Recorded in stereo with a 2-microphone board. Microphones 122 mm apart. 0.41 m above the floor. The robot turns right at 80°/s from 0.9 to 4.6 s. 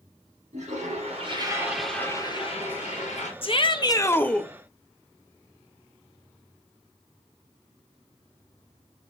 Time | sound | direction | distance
0.5 | a toilet flushing | 75° right | 4 m
3.4 | a shout | 95° left | 1.1 m